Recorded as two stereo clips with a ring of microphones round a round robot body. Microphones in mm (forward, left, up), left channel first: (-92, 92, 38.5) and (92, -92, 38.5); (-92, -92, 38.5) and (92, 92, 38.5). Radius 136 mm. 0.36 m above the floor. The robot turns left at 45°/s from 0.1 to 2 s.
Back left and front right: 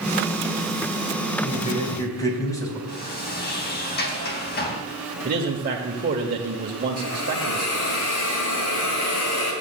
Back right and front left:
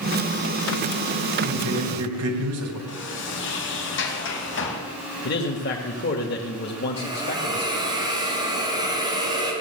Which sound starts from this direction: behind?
A sliding door, at 2.9 s.